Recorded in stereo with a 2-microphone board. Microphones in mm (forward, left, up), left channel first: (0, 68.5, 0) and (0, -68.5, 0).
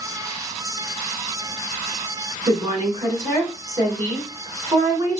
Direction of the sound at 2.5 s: 25° right (ahead or behind).